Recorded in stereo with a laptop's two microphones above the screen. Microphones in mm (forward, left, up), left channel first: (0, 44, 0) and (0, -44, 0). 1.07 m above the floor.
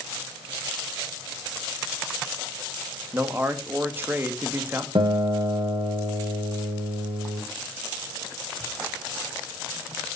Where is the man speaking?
25° right (ahead or behind), 1.5 m.